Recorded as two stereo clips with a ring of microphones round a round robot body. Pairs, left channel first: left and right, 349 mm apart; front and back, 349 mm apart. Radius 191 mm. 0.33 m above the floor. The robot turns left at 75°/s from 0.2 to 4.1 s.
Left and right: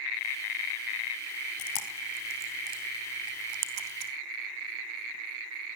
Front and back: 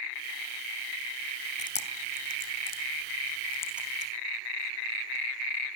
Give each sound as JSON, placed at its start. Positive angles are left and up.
{"t": 1.6, "sound": "chewing", "azimuth_deg": 70, "distance_m": 2.5}